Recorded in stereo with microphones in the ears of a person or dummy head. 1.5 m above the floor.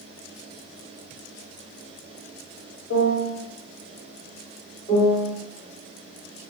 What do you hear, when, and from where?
2.9 s a piano: 70° left (ahead or behind), 1.1 m
4.9 s a piano: 20° left (ahead or behind), 2.0 m